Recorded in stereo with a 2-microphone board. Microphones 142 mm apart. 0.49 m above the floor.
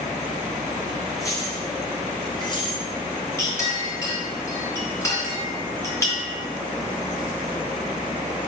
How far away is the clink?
About 4 m.